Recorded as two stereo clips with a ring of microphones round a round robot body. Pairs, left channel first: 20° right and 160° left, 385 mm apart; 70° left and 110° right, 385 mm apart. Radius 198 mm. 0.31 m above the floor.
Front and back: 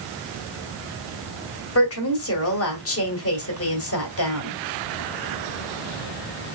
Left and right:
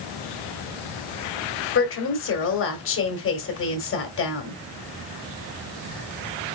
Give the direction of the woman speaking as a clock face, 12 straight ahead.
11 o'clock.